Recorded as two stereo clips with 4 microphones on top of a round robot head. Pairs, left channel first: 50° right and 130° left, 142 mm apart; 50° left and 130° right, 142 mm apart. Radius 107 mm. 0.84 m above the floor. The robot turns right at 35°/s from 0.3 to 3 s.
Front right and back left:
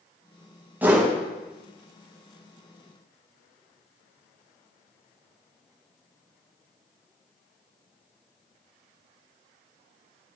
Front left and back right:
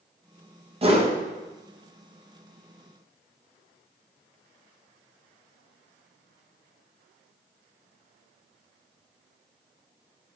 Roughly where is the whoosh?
Behind right.